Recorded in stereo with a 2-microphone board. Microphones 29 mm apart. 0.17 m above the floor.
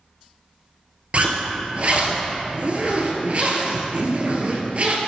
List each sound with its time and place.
1.1 s a zipper: 50° right (ahead or behind), 1.4 m